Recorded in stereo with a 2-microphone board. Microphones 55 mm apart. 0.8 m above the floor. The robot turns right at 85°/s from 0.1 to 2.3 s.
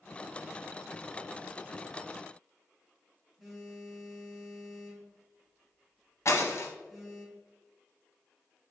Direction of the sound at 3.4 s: Centre (ahead or behind).